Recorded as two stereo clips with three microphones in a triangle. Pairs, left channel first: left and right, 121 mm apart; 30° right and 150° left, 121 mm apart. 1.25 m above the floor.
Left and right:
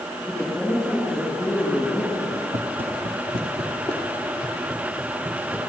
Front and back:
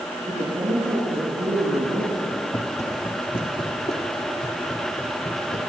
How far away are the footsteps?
About 2.0 m.